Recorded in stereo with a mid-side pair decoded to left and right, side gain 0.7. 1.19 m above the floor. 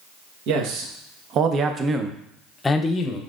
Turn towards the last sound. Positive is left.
turn(degrees=35)